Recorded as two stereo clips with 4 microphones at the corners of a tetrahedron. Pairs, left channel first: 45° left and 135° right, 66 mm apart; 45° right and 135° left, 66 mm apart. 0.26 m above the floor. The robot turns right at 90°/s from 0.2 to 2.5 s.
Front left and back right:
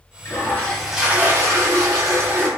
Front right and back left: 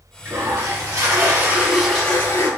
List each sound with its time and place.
0.2 s a toilet flushing: 80° left, 0.8 m; by 2.5 s 75° right, 0.8 m